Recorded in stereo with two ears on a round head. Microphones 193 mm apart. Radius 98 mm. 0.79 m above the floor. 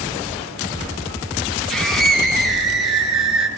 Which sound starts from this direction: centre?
A scream, at 1.7 s.